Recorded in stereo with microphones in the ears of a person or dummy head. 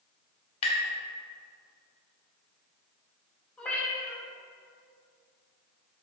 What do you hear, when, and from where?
0.6 s tapping: 40° left (ahead or behind), 2.5 m
3.6 s a cat meowing: 10° left (ahead or behind), 2 m